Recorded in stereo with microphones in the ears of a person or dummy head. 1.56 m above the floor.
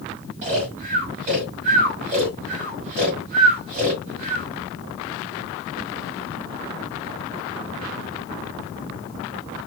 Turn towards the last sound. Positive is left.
turn(degrees=-35)  # may be behind; listen again after turning